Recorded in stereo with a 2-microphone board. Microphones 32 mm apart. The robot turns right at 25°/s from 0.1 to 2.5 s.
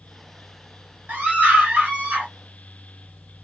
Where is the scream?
95° right, 2.0 m; by 2.3 s 65° right, 2.0 m.